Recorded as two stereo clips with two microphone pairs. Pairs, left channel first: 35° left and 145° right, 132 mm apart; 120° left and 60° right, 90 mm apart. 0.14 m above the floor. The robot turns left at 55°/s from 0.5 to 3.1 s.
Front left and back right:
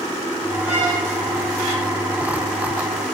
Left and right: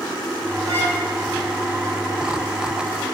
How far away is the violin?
About 5 m.